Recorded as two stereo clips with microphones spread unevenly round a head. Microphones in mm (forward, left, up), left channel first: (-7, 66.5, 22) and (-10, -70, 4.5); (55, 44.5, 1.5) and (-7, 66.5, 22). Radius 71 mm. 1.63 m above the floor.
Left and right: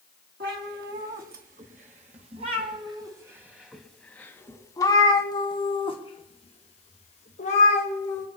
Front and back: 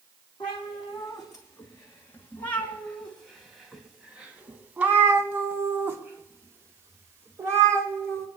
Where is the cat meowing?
80° right, 2.5 m; by 8.3 s 120° left, 4 m.